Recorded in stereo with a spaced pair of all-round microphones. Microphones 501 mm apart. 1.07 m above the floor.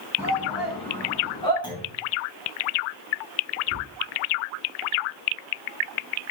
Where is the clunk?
10° left (ahead or behind), 6 m.